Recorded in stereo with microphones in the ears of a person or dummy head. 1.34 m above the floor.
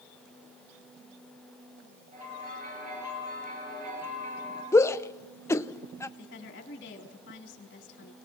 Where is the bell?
45° right (ahead or behind), 5.5 m.